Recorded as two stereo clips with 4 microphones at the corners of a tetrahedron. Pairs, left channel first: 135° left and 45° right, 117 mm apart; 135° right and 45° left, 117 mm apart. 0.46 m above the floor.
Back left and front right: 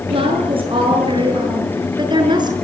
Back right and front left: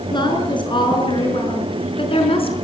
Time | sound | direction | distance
0.1 | a woman speaking | 85° right | 6.5 m